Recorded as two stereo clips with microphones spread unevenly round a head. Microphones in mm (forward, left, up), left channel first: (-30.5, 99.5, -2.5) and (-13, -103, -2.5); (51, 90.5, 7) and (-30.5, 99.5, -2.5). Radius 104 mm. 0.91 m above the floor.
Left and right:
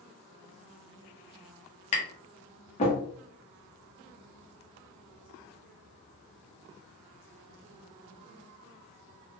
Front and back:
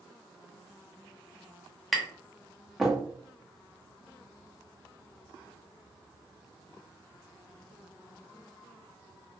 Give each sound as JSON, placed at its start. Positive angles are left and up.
{"t": 1.9, "sound": "tapping", "azimuth_deg": 95, "distance_m": 0.8}